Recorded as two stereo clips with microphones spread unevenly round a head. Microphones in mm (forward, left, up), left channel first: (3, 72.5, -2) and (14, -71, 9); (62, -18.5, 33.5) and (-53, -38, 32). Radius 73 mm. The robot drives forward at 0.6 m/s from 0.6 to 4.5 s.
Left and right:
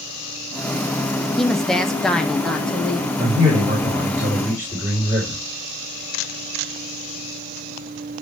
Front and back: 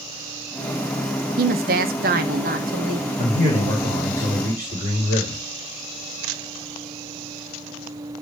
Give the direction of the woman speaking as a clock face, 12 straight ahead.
6 o'clock.